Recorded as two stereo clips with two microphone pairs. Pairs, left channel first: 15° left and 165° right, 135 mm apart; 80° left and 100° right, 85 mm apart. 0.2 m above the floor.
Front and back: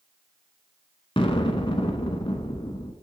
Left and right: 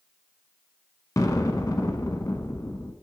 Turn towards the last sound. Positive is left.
turn(degrees=50)